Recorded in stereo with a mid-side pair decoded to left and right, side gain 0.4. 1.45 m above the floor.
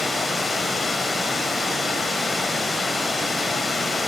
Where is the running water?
30° left, 1.1 m.